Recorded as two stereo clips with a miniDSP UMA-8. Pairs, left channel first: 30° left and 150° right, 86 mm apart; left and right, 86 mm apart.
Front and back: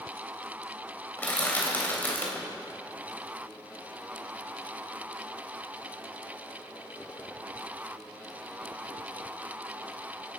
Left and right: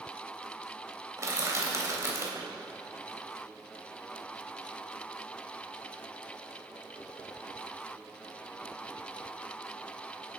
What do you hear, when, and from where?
1.2 s crushing: 40° right, 3 m